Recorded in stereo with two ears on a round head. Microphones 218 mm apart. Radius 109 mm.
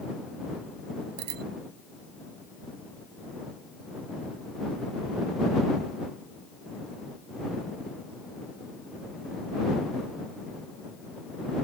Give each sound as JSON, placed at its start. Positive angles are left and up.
{"t": 1.2, "sound": "a bicycle bell", "side_deg": -70}